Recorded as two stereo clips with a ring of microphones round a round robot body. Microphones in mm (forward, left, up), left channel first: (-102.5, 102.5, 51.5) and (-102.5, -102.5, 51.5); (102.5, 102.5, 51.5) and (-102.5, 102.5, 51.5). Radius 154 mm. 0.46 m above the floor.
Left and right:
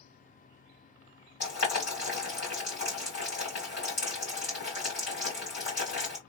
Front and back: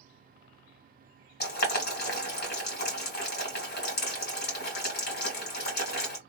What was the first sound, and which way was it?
Boiling, 40° left.